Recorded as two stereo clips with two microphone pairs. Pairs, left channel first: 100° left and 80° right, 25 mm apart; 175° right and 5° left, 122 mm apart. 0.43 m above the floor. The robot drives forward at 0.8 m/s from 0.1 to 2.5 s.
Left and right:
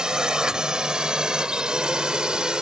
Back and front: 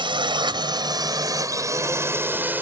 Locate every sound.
0.0 s a drone: 30° right; by 2.6 s 60° right